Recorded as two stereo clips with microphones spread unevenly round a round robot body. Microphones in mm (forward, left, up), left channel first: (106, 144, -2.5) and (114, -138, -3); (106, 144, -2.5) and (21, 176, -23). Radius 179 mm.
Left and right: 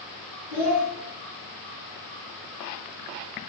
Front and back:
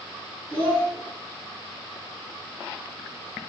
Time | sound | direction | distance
0.5 | a child speaking | 155° right | 4 m